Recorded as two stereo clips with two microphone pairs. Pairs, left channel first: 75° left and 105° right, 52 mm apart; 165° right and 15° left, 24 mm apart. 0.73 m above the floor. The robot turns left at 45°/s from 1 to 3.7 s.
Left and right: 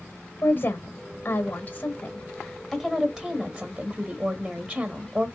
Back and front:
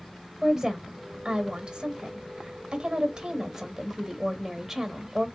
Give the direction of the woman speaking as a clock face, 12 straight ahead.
10 o'clock.